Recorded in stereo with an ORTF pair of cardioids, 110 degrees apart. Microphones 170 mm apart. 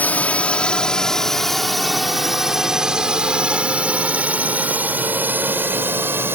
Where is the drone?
10° left; by 6.4 s 10° right.